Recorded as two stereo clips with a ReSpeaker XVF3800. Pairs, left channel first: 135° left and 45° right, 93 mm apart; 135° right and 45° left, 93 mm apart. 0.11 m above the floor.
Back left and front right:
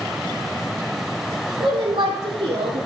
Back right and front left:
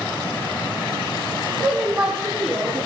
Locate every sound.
1.6 s a woman speaking: 40° right, 4.5 m; by 2.9 s 45° right, 4 m